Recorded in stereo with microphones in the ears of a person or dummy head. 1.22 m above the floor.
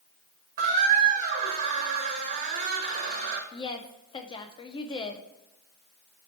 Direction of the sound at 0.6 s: 45° right (ahead or behind).